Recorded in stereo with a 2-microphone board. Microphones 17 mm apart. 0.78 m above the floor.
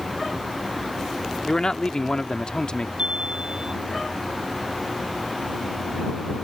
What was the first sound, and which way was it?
A man speaking, 50° left (ahead or behind).